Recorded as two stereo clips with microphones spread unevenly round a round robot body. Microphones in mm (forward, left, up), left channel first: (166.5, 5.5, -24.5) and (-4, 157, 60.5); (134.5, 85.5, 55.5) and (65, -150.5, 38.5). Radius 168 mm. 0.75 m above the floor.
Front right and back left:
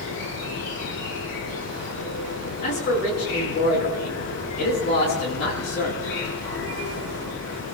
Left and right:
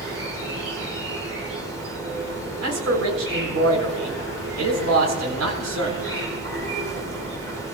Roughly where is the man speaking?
Right.